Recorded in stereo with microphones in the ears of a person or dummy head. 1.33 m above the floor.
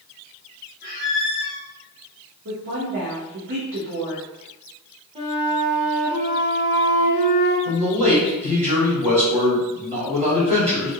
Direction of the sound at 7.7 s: 30° right (ahead or behind).